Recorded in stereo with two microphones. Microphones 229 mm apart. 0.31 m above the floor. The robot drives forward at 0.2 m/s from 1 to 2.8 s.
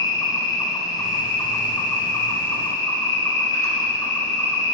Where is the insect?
15° left (ahead or behind), 1.2 m; by 4.7 s 10° left (ahead or behind), 1.6 m.